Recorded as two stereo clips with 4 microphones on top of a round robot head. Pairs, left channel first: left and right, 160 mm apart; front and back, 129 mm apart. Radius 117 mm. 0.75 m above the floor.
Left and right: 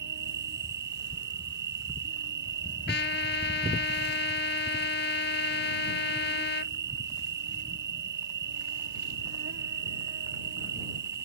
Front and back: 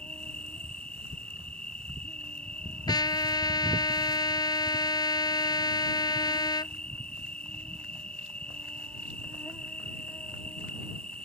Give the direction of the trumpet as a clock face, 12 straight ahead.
10 o'clock.